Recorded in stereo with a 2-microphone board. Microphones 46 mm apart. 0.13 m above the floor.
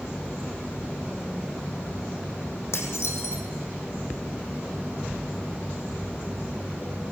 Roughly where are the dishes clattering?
Left.